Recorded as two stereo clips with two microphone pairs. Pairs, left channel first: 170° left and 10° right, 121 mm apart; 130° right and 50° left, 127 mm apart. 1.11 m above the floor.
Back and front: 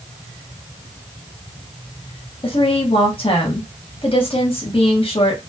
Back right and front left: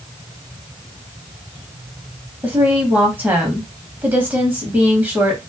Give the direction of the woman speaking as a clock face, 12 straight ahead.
8 o'clock.